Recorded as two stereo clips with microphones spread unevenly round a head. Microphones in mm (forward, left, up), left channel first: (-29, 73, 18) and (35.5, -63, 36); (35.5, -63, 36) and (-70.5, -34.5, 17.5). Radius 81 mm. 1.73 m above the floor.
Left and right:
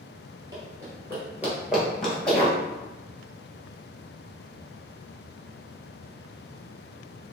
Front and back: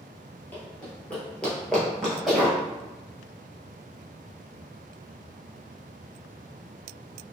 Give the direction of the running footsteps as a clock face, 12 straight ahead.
2 o'clock.